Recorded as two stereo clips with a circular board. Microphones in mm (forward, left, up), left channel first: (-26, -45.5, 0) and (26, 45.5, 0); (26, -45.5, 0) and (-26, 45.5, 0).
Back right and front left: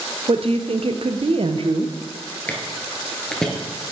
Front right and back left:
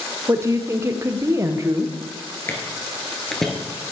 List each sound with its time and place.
0.3 s a woman speaking: 60° left, 0.7 m
2.5 s footsteps: 70° right, 1.6 m; by 3.5 s 135° right, 1.5 m